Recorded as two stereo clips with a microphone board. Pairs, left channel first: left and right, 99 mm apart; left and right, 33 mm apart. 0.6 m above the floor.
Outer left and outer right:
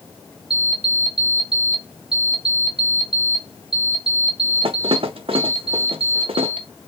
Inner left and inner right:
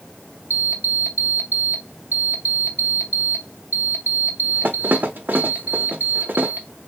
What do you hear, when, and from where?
0.5 s an alarm clock: 70° right (ahead or behind), 0.6 m